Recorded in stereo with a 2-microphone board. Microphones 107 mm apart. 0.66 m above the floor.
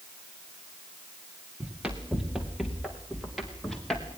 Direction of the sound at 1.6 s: 10° right (ahead or behind).